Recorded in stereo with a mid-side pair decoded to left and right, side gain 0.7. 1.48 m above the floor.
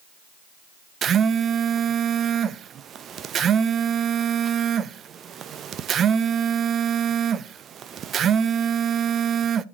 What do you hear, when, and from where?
1.0 s a phone buzzing: 40° right, 0.5 m